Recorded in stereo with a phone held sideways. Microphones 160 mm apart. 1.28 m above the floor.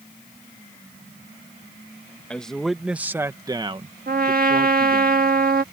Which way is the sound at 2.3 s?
5° left (ahead or behind).